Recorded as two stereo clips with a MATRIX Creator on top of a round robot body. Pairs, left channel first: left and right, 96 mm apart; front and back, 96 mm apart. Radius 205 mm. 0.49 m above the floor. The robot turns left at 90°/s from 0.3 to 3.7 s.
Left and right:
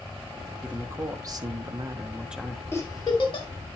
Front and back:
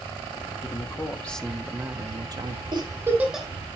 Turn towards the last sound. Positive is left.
turn(degrees=65)